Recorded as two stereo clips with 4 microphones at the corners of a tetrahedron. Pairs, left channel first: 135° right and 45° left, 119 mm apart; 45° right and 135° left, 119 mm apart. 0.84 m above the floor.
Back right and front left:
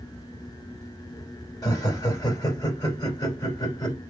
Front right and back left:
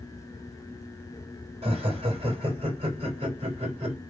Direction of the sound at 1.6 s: 170° left.